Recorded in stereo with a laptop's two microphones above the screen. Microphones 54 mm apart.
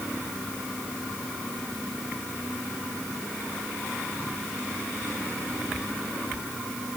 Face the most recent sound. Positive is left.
No sound to turn to.